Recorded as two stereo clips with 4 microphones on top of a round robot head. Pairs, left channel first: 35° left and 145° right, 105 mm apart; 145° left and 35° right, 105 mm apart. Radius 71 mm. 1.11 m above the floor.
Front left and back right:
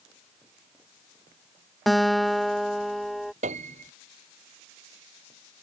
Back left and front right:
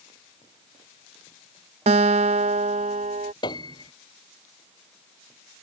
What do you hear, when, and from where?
1.9 s a guitar: 55° right
3.4 s a piano: 165° right